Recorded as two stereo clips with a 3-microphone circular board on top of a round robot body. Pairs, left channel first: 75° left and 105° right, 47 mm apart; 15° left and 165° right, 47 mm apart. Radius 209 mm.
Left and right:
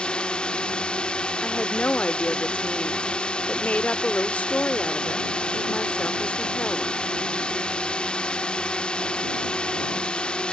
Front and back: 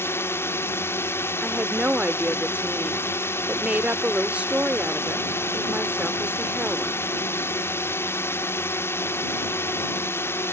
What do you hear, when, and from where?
0.0 s a drone: 10° left
1.4 s a woman speaking: 135° left